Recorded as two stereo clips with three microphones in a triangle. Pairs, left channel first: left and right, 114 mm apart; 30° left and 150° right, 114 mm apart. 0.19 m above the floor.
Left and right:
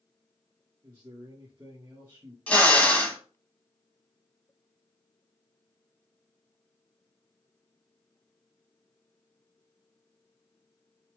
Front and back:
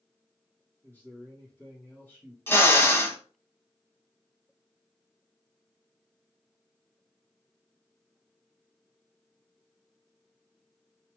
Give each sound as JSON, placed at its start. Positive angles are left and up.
{"t": 0.8, "sound": "a man speaking", "azimuth_deg": -35, "distance_m": 2.5}
{"t": 2.5, "sound": "a drill", "azimuth_deg": 40, "distance_m": 0.9}